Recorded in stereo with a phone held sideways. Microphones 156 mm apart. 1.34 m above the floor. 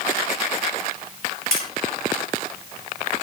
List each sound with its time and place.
1.5 s tapping: 80° left, 8 m